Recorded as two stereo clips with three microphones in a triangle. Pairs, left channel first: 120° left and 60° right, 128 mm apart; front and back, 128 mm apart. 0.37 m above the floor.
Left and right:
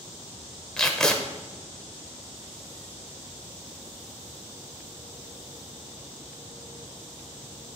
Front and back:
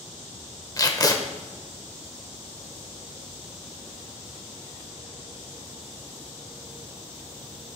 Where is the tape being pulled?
40° left, 1.0 m.